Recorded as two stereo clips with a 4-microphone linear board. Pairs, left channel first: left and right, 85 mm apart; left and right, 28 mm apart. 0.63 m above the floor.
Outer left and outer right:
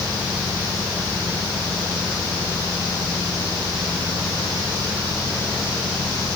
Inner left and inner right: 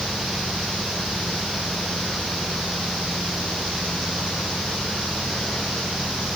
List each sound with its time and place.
Only background noise.